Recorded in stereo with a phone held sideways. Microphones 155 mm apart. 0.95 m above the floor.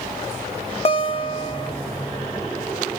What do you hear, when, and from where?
0.8 s a guitar: 40° left (ahead or behind), 0.9 m